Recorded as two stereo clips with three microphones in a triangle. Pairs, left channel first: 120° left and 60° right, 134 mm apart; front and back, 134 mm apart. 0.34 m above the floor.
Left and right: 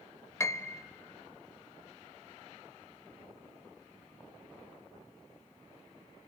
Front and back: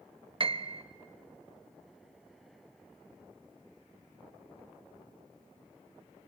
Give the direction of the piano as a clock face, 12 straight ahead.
6 o'clock.